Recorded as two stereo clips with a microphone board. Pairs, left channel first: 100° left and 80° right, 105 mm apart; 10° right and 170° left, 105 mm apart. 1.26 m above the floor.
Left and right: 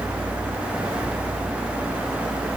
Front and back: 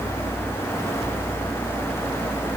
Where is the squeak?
No squeak in this recording.